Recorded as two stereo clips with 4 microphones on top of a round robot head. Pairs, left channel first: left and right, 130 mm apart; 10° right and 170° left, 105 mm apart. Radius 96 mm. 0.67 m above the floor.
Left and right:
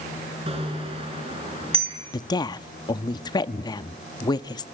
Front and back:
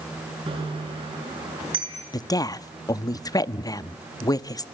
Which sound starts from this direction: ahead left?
A woman speaking, at 2.1 s.